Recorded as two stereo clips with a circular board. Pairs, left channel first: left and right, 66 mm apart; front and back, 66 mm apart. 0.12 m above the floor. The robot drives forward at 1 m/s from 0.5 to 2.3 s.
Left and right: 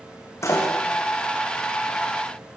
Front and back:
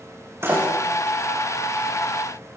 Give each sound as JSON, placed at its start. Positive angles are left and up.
{"t": 0.4, "sound": "a door slam", "azimuth_deg": 130, "distance_m": 8.0}